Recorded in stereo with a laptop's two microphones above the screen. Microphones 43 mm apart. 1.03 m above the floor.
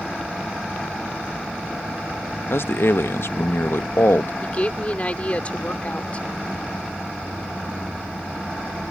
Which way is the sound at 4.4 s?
30° left (ahead or behind).